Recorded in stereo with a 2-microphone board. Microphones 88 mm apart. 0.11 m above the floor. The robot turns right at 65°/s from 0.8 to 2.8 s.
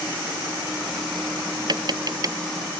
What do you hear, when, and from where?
1.7 s tapping: 55° right (ahead or behind); by 2.4 s 40° right (ahead or behind)